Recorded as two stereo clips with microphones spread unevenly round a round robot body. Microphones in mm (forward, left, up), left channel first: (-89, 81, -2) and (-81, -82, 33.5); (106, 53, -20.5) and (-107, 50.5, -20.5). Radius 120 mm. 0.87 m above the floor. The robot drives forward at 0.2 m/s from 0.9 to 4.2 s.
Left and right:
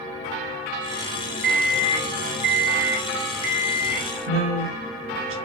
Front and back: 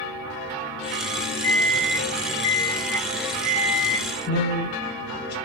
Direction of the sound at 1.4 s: 80° right.